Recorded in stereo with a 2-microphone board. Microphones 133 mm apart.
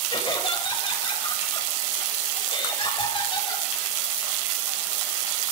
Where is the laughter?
40° left (ahead or behind), 5.5 m.